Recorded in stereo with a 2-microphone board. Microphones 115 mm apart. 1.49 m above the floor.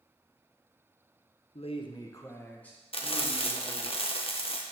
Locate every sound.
1.6 s a man speaking: 65° left (ahead or behind), 0.9 m; by 3.9 s centre (ahead or behind), 3 m
2.9 s frying: 55° left (ahead or behind), 1.0 m